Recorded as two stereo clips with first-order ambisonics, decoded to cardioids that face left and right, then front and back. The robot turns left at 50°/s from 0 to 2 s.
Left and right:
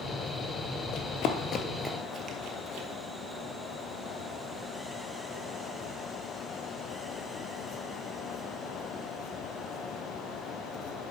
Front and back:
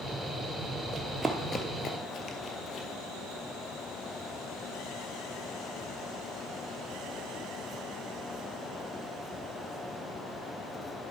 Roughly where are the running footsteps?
Behind left.